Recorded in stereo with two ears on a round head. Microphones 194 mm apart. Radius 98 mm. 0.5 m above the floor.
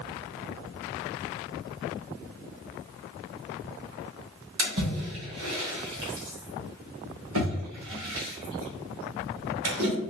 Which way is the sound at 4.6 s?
70° right (ahead or behind).